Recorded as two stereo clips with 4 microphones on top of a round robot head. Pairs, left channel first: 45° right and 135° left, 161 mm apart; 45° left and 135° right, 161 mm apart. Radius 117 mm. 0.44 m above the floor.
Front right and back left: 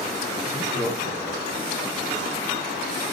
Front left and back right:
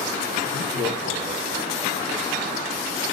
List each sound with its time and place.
0.4 s laughter: 50° left, 3.5 m; by 1.9 s 75° left, 4.5 m